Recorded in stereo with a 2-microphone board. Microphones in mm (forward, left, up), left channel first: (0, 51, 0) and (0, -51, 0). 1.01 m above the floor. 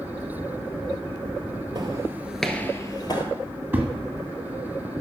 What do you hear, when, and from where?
1.8 s footsteps: 45° right (ahead or behind), 1.3 m; by 3.2 s 50° left (ahead or behind), 1.6 m
3.7 s a thud: 20° right (ahead or behind), 1.6 m